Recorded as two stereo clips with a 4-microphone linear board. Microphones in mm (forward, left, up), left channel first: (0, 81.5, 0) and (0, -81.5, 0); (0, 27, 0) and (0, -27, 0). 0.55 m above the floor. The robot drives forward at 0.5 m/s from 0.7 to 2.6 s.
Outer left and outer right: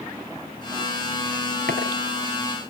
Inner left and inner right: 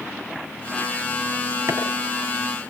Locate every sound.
1.7 s chopping: 70° right (ahead or behind), 6 m